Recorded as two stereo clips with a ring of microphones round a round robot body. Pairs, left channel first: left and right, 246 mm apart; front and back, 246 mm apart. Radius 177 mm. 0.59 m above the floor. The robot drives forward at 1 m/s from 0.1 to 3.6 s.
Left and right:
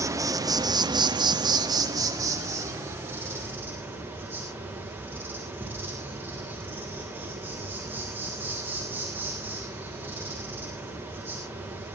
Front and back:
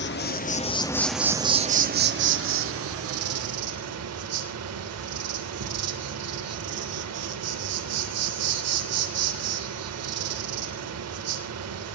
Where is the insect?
15° right, 1.5 m; by 12.0 s 175° right, 2.5 m.